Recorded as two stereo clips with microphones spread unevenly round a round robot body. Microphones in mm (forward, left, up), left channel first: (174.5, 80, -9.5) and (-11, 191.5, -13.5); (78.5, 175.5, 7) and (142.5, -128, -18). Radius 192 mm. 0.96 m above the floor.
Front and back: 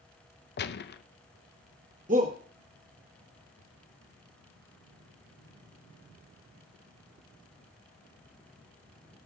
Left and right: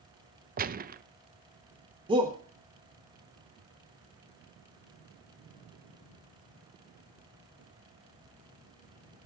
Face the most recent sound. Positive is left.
turn(degrees=-150)